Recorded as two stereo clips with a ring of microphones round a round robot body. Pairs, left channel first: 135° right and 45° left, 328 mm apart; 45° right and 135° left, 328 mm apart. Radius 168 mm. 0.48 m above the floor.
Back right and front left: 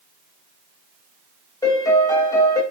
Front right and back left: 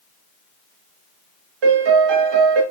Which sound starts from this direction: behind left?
A piano, at 1.6 s.